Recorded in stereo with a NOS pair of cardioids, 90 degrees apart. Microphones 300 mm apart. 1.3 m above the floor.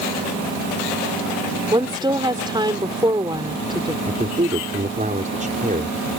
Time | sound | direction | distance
1.7 | a woman speaking | 15° right | ?
4.1 | a man speaking | 25° right | ?